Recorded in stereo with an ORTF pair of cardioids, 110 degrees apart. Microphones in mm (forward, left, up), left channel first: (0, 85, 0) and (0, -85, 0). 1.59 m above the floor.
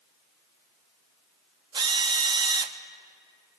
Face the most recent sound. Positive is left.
turn(degrees=-25)